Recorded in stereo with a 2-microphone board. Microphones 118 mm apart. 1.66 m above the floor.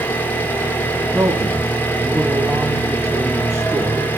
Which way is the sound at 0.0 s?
15° left (ahead or behind).